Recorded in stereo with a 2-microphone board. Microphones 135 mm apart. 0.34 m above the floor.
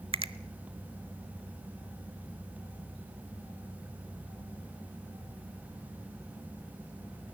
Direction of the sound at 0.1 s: 40° right (ahead or behind).